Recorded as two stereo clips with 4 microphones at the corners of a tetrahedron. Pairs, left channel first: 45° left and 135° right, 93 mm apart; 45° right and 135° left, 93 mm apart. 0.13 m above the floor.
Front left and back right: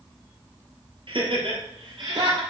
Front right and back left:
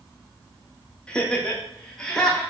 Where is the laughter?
125° right, 3 m; by 2.4 s 130° right, 4 m.